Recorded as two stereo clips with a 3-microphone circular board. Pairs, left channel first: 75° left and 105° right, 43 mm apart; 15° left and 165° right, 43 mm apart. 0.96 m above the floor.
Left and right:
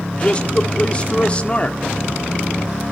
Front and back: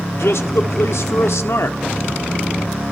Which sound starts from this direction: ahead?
A man speaking, at 0.1 s.